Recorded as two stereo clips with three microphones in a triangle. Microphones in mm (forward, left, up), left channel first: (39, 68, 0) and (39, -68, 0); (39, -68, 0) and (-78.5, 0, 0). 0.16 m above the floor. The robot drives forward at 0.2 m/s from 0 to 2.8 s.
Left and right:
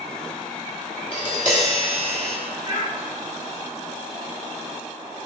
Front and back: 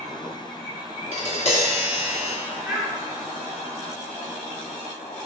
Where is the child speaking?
150° right, 2.0 m.